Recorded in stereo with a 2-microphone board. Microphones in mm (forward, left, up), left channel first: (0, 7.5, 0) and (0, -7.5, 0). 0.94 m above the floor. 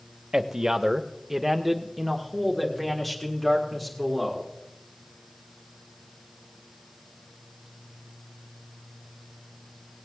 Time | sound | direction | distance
0.3 | a man speaking | 40° right (ahead or behind) | 0.9 m